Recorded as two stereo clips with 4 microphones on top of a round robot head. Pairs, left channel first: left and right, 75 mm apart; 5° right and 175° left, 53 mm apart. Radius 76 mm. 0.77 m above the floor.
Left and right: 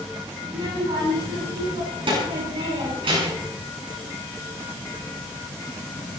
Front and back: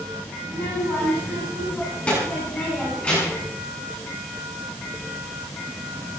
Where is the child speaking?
70° right, 6 m; by 3.5 s 80° right, 7 m.